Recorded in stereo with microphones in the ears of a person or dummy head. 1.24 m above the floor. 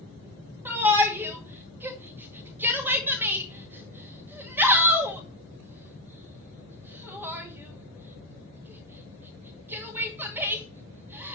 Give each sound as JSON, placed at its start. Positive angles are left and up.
{"t": 0.7, "sound": "a shout", "side_deg": -10, "distance_m": 1.9}